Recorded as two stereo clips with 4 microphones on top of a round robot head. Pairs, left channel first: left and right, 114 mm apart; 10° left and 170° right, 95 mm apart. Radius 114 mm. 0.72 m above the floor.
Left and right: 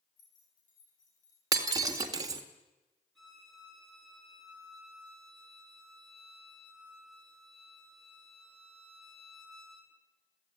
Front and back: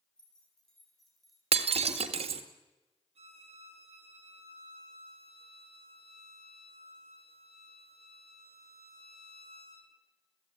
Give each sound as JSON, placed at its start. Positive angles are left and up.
{"t": 0.2, "sound": "keys jangling", "azimuth_deg": 95, "distance_m": 8.0}
{"t": 1.5, "sound": "breaking glass", "azimuth_deg": -150, "distance_m": 1.6}
{"t": 3.1, "sound": "a violin", "azimuth_deg": 175, "distance_m": 8.0}